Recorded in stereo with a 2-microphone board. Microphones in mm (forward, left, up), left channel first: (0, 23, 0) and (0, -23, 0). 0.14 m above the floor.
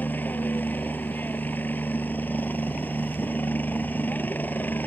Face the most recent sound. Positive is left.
turn(degrees=40)  # may be behind; listen again after turning